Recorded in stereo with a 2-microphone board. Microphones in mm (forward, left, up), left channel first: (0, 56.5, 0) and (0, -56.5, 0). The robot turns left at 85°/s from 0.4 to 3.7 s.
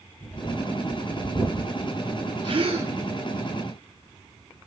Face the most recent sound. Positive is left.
turn(degrees=-145)